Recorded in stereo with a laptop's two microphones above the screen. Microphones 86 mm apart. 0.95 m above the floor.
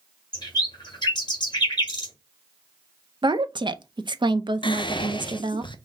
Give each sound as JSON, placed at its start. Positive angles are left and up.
{"t": 0.3, "sound": "a bird", "side_deg": 55, "distance_m": 1.9}
{"t": 3.2, "sound": "a woman speaking", "side_deg": -60, "distance_m": 0.6}
{"t": 4.6, "sound": "whispering", "side_deg": 65, "distance_m": 0.6}